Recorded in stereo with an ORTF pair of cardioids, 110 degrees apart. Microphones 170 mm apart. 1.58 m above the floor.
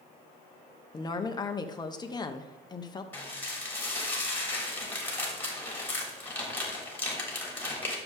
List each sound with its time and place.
0.9 s a woman speaking: 20° left, 1.1 m
3.1 s dishes clattering: 10° left, 3 m